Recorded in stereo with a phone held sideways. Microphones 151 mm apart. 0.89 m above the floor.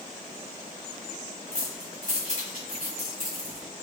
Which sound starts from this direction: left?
Keys jangling, at 1.5 s.